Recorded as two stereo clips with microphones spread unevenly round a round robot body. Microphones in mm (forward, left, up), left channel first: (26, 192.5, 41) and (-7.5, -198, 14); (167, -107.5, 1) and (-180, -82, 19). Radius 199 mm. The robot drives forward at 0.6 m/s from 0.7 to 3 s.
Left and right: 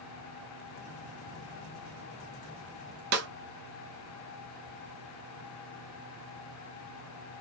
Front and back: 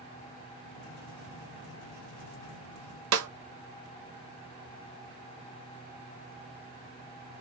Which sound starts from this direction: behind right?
A snare drum, at 3.1 s.